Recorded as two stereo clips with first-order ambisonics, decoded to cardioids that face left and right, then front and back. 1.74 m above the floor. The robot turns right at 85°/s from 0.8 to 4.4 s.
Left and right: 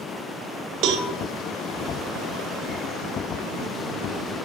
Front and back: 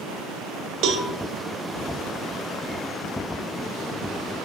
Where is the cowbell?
135° right, 0.5 m; by 1.1 s 115° right, 0.5 m.